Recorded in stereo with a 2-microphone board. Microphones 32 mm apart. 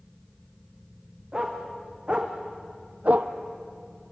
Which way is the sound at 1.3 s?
25° right (ahead or behind).